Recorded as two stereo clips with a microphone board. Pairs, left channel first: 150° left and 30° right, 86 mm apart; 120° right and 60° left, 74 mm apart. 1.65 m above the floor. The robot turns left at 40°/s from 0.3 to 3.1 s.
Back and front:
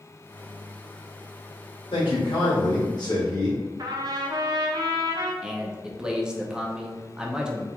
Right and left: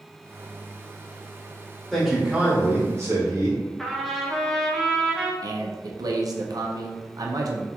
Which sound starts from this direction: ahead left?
A man speaking, at 5.4 s.